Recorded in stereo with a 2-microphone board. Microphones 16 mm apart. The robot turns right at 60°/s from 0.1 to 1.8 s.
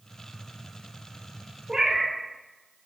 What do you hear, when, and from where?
1.7 s a cat meowing: 25° right (ahead or behind), 0.7 m; by 2.2 s 30° right (ahead or behind), 0.7 m